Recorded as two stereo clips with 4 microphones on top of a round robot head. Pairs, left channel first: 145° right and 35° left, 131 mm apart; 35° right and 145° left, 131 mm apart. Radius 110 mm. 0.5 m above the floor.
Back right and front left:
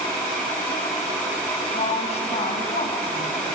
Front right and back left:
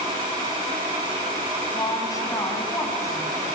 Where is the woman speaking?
100° right, 4.5 m; by 3.5 s 105° right, 5.5 m.